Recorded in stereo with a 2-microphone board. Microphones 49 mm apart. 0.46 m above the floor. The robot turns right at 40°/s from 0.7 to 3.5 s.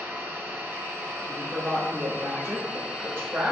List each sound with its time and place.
0.0 s an engine running: 105° right, 2.5 m; by 3.5 s 10° left, 2.5 m
1.2 s a woman speaking: 140° right, 1.3 m; by 3.5 s 50° right, 1.3 m